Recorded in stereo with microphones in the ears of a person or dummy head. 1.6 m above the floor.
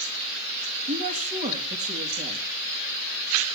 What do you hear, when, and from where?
0.9 s a woman speaking: 30° right (ahead or behind), 3 m